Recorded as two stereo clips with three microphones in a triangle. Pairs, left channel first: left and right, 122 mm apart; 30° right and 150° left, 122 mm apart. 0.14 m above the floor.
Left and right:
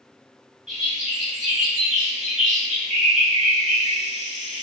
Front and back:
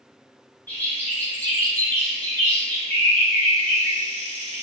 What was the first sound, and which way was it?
A bird, 105° right.